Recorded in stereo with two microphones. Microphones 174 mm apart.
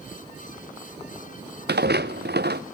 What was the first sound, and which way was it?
Footsteps, 70° right (ahead or behind).